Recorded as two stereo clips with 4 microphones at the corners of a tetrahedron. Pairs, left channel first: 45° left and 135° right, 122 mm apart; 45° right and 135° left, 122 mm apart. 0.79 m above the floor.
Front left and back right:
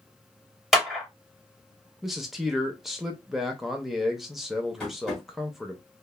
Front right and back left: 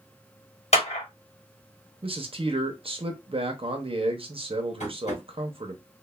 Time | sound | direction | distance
0.7 | a clap | 45° right | 1.4 m
2.0 | a man speaking | 135° left | 0.6 m
4.8 | tapping | 40° right | 1.3 m